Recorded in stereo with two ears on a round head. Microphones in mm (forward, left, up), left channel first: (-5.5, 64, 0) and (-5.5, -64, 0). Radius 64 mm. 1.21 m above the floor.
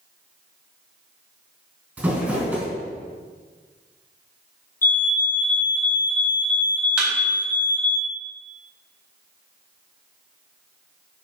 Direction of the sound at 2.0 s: 10° right (ahead or behind).